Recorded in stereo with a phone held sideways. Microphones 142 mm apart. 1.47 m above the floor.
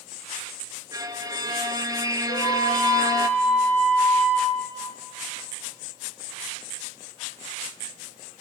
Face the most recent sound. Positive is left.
turn(degrees=50)  # may be behind; listen again after turning